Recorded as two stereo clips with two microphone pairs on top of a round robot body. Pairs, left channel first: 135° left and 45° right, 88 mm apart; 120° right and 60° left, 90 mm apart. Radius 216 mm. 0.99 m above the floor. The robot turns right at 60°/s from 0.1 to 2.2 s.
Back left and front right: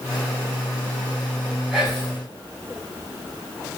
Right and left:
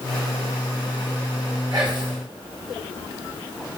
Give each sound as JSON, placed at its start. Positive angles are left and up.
{"t": 1.7, "sound": "whispering", "azimuth_deg": 35, "distance_m": 1.7}